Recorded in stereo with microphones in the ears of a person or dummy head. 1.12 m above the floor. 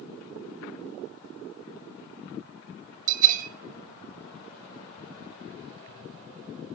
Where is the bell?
45° right (ahead or behind), 2.5 m.